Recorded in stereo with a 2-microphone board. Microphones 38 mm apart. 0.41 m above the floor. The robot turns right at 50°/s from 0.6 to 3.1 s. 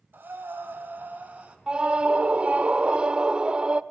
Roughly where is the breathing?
Right.